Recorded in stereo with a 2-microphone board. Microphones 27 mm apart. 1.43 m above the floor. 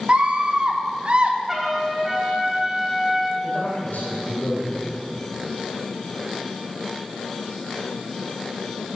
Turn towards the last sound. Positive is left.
turn(degrees=85)